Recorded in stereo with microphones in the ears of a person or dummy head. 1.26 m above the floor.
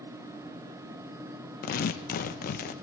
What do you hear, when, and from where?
1.6 s tearing paper: 50° left (ahead or behind), 1.1 m